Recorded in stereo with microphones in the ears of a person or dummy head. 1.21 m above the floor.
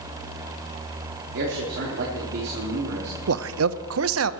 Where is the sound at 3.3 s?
75° right (ahead or behind), 0.7 m.